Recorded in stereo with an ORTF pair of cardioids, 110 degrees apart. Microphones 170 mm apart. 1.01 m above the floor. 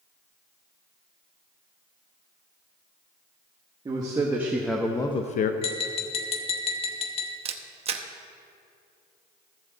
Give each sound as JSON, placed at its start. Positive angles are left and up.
{"t": 3.9, "sound": "a man speaking", "azimuth_deg": -25, "distance_m": 1.6}
{"t": 5.6, "sound": "tapping", "azimuth_deg": 35, "distance_m": 1.2}
{"t": 7.5, "sound": "a camera shutter", "azimuth_deg": -40, "distance_m": 0.8}